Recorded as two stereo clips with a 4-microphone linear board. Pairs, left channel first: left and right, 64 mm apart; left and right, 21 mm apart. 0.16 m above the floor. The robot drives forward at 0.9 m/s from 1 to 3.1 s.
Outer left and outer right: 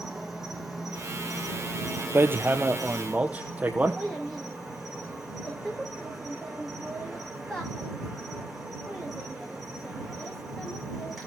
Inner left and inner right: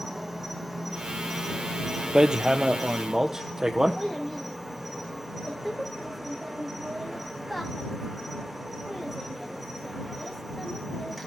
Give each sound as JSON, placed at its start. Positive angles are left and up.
{"t": 0.0, "sound": "an insect", "side_deg": -5, "distance_m": 6.0}
{"t": 2.1, "sound": "hammering", "side_deg": -40, "distance_m": 1.1}
{"t": 4.0, "sound": "a child speaking", "side_deg": 10, "distance_m": 7.0}